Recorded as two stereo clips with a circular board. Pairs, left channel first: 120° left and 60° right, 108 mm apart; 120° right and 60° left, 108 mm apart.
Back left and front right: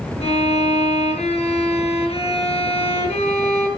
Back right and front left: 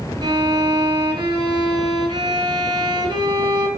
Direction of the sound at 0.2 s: 110° left.